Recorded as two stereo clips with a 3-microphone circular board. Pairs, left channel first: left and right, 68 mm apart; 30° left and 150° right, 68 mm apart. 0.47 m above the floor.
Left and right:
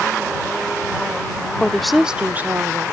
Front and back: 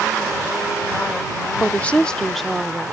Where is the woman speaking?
35° left; by 2.9 s 70° right.